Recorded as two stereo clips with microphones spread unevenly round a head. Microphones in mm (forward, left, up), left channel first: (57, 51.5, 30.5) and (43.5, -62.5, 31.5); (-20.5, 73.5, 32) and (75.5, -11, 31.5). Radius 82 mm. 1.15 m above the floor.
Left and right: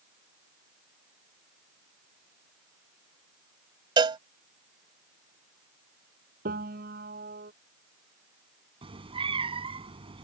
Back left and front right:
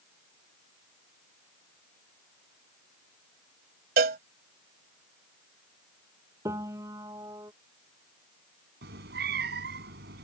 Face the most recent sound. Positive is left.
turn(degrees=-50)